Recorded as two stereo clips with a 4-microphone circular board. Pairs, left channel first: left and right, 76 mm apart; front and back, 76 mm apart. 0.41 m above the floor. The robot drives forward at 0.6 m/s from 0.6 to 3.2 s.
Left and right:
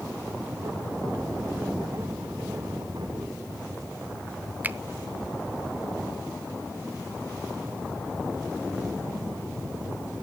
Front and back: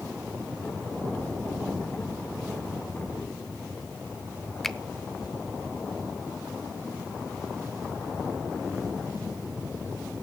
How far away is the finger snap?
About 0.6 m.